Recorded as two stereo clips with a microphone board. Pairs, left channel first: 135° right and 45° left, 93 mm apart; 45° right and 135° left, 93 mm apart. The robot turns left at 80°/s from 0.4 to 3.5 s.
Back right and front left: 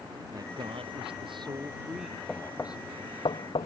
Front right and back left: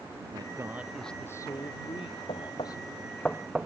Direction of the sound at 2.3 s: 45° right.